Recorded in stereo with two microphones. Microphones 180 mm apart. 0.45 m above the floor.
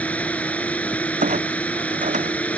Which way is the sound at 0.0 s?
10° left (ahead or behind).